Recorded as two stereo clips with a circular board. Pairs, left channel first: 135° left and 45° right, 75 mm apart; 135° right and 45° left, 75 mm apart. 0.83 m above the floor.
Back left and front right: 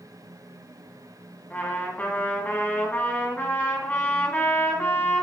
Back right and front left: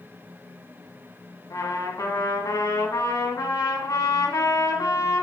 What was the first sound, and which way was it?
A trumpet, 160° right.